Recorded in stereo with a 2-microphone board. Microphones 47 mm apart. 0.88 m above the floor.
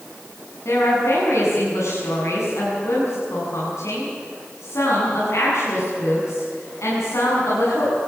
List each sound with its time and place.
0.7 s a woman speaking: 75° left (ahead or behind), 7.5 m